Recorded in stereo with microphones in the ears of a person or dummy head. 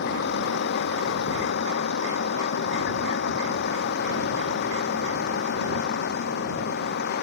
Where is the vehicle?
60° left (ahead or behind).